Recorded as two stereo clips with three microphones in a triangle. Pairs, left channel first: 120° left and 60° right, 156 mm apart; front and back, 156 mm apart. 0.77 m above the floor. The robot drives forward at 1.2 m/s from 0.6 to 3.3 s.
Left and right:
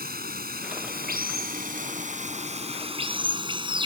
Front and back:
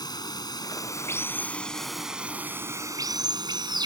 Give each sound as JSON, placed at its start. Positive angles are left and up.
{"t": 0.0, "sound": "running water", "azimuth_deg": -65}